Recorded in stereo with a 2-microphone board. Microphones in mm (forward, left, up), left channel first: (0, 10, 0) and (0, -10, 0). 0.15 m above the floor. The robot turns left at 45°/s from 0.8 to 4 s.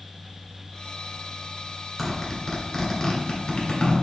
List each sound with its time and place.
2.0 s a zipper: 10° right (ahead or behind), 1.3 m; by 4.0 s 50° left (ahead or behind), 1.3 m